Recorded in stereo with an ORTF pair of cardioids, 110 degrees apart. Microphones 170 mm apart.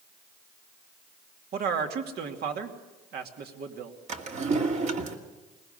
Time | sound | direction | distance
1.5 | a man speaking | 60° right | 2.5 m
4.1 | a drawer | 40° right | 2 m